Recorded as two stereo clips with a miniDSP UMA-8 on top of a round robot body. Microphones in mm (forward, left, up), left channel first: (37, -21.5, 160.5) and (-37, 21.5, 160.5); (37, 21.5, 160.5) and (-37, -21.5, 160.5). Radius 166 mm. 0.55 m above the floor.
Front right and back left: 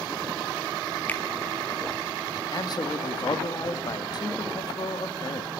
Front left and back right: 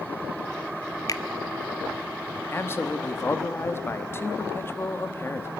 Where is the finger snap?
30° left, 1.1 m.